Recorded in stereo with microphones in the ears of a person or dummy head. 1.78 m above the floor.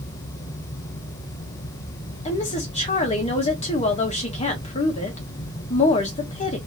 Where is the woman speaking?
30° left (ahead or behind), 1.3 m.